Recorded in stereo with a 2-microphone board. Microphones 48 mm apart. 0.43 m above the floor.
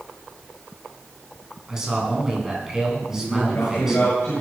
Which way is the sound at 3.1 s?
75° left (ahead or behind).